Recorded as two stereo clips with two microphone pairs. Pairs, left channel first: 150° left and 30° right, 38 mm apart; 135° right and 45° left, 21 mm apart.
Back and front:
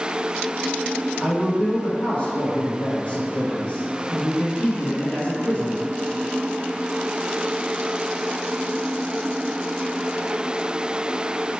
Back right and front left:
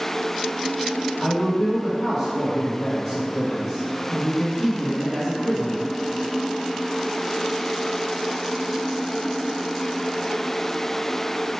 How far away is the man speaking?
About 1.7 m.